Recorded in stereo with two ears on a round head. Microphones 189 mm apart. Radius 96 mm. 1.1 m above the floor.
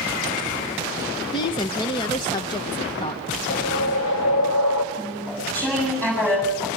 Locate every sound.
1.3 s a woman speaking: 20° left (ahead or behind), 1.0 m
3.5 s a whoosh: 80° left, 3 m
4.9 s chewing: 5° left (ahead or behind), 7 m